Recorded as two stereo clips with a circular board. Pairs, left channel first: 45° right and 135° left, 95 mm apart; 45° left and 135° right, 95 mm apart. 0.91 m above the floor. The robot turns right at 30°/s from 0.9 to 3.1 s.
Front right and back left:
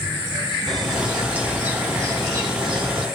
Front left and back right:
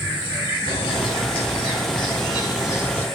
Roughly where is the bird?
Ahead left.